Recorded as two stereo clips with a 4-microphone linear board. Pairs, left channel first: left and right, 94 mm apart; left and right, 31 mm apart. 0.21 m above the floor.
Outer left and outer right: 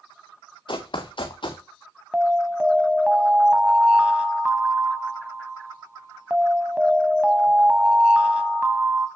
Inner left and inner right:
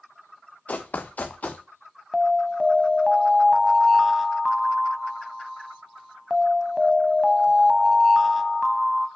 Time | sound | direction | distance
0.7 | running footsteps | 55° left (ahead or behind) | 1.2 m
2.1 | an alarm | 10° right (ahead or behind) | 0.7 m